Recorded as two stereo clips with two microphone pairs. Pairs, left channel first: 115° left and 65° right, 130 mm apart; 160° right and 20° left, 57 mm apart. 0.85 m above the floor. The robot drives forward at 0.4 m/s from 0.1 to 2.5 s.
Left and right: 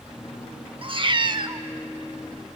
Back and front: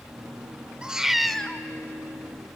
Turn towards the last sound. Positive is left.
turn(degrees=-140)